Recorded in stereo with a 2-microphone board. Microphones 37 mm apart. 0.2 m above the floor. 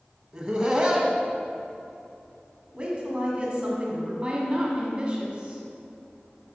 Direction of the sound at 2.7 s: 25° right (ahead or behind).